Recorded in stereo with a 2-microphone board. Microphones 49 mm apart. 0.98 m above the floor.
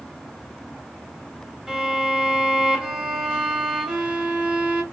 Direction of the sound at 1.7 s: 5° right (ahead or behind).